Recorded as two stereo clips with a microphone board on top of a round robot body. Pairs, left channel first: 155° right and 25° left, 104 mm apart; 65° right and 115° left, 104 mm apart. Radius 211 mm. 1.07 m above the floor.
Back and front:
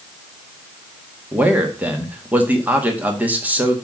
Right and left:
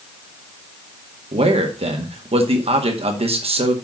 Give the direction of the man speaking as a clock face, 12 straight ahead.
9 o'clock.